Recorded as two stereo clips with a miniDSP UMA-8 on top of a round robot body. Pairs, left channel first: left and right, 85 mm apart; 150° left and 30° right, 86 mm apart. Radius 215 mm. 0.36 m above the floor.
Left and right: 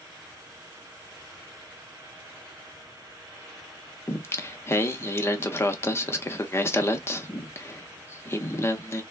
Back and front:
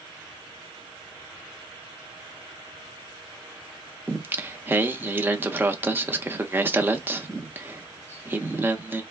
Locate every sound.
4.1 s singing: 35° left, 0.8 m